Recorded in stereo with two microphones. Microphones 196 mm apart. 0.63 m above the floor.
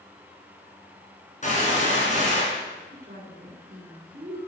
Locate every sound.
1.4 s a gunshot: 40° left (ahead or behind), 4.5 m
2.9 s a woman speaking: 45° right (ahead or behind), 2.5 m